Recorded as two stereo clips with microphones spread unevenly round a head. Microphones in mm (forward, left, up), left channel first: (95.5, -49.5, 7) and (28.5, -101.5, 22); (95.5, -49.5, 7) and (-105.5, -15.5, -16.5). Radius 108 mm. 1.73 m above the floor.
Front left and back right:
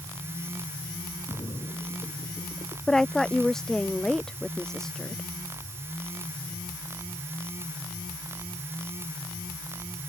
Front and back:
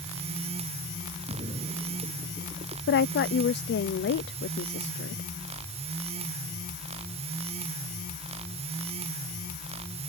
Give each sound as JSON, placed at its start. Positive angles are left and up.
{"t": 1.3, "sound": "a splash", "azimuth_deg": 105}
{"t": 2.9, "sound": "a woman speaking", "azimuth_deg": -50}